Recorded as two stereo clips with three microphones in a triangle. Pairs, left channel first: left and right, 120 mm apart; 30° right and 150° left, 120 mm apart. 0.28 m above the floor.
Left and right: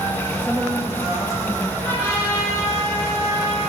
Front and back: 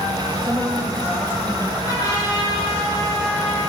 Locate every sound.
0.4 s a woman speaking: 165° right, 1.0 m; by 1.7 s 65° right, 1.3 m
1.8 s a trumpet: 20° left, 3.5 m